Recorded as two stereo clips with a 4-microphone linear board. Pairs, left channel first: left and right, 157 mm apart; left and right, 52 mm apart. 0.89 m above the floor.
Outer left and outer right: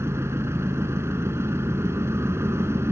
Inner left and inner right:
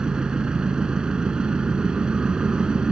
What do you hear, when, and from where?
0.0 s an engine running: 15° right (ahead or behind), 2.5 m